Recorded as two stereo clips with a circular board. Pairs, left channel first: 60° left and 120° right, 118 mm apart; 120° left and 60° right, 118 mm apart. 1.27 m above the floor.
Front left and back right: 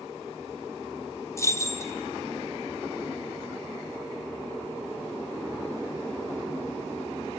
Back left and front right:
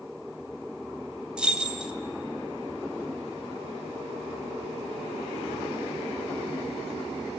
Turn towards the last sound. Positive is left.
turn(degrees=15)